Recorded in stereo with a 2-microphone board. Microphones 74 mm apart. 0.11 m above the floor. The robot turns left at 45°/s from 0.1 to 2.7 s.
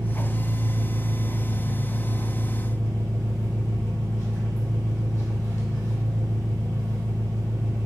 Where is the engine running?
95° right, 1.6 m; by 7.9 s 150° left, 1.6 m.